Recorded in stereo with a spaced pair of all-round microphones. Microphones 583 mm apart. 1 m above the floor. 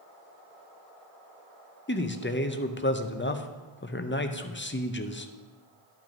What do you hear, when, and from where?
1.9 s a man speaking: 20° left (ahead or behind), 0.5 m